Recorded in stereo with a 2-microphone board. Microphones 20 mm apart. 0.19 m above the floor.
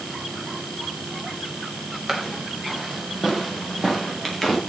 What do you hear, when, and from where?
2.1 s footsteps: 10° right (ahead or behind), 8.5 m; by 4.6 s 5° left (ahead or behind), 9 m